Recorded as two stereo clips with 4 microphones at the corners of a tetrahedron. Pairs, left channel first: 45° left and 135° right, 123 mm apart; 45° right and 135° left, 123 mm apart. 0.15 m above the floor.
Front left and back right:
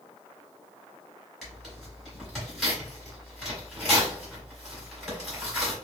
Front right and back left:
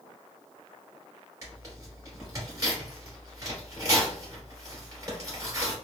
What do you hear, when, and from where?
1.4 s tearing paper: 130° left, 1.6 m